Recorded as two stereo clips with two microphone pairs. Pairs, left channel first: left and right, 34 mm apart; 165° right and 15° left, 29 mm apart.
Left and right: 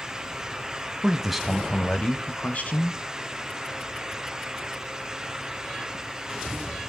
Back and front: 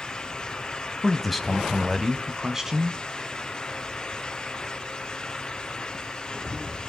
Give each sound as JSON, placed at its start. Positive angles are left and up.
{"t": 1.0, "sound": "a man speaking", "azimuth_deg": -100, "distance_m": 1.1}